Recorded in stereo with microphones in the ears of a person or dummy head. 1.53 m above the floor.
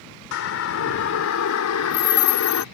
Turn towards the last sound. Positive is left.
turn(degrees=85)